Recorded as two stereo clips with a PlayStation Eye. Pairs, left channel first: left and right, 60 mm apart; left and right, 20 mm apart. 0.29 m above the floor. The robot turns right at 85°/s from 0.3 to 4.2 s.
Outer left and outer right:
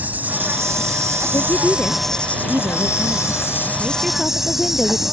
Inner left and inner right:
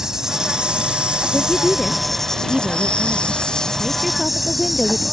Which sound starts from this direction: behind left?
A woman speaking, at 1.3 s.